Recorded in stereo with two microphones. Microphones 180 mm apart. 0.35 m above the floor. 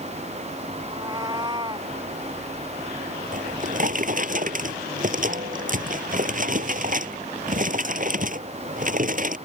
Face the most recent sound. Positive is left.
turn(degrees=-50)  # may be behind; listen again after turning